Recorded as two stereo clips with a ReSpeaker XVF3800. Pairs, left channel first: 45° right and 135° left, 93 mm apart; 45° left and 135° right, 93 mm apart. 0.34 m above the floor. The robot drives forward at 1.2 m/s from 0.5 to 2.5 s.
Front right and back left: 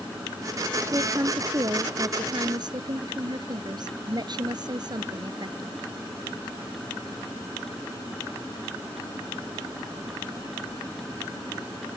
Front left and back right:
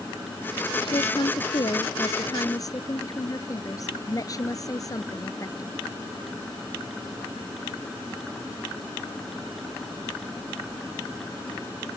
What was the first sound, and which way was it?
A woman speaking, 75° left.